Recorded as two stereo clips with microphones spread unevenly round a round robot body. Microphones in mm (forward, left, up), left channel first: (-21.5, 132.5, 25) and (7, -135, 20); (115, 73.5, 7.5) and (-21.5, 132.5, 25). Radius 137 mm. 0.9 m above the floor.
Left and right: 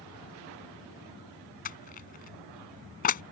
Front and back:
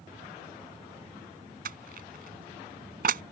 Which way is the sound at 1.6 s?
155° left.